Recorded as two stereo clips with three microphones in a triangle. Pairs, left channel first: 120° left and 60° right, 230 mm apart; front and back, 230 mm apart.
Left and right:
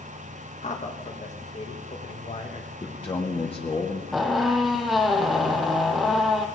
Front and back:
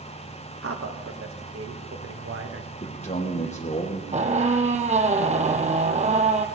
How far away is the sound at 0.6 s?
About 2.0 m.